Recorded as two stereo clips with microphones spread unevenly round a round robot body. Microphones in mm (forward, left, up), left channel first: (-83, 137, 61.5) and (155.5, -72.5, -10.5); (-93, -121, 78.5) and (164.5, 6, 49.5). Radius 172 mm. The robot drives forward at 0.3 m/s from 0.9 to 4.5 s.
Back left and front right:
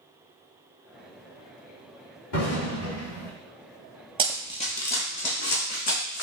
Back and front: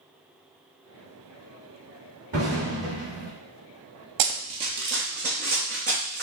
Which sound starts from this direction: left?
An explosion, at 2.3 s.